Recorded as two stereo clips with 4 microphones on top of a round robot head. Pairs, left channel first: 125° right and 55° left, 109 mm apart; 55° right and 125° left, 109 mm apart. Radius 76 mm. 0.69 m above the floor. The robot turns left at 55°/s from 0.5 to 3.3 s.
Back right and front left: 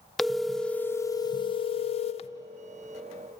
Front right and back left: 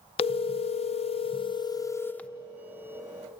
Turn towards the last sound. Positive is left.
turn(degrees=170)